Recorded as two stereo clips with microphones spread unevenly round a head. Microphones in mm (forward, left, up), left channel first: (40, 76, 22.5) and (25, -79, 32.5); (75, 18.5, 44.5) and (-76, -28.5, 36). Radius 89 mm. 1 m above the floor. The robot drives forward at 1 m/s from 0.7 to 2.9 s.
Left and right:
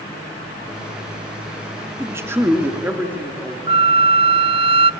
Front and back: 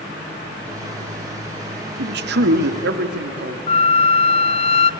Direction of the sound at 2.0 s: 170° right.